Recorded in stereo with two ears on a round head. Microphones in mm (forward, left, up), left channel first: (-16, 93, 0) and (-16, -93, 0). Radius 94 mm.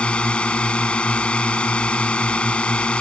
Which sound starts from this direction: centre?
A drone, at 0.0 s.